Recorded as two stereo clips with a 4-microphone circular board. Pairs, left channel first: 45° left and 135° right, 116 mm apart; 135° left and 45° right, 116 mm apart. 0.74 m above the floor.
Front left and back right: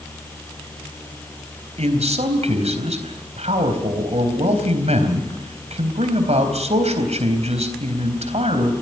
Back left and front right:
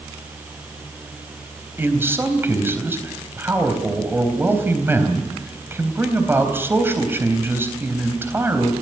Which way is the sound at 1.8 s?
115° right.